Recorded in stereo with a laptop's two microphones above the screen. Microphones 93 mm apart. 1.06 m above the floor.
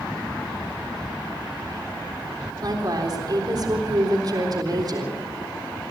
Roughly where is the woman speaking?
Right.